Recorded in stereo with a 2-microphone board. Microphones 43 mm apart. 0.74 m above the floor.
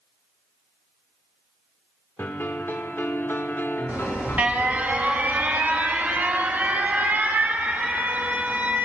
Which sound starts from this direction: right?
An alarm, at 3.9 s.